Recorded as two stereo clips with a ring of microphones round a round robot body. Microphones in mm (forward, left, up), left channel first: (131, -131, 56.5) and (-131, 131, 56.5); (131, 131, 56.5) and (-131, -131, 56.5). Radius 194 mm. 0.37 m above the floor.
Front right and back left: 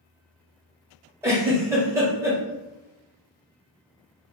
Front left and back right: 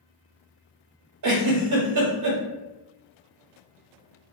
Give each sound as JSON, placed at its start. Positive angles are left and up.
{"t": 1.2, "sound": "a giggle", "azimuth_deg": -145, "distance_m": 1.0}